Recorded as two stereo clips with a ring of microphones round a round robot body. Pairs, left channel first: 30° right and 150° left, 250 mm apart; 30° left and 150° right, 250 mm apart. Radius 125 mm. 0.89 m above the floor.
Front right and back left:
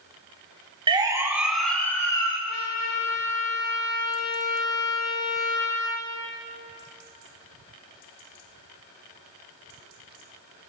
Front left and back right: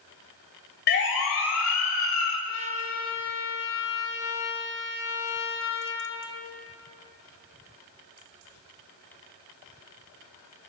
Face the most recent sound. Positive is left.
turn(degrees=-10)